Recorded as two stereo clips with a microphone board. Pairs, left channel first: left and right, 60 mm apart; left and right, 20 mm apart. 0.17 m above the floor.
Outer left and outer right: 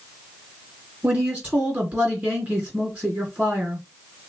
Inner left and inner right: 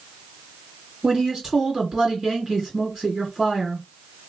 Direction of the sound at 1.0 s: 25° right (ahead or behind).